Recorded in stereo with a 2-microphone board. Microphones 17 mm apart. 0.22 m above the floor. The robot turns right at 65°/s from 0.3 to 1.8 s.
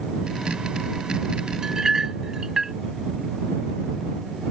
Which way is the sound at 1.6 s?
40° right (ahead or behind).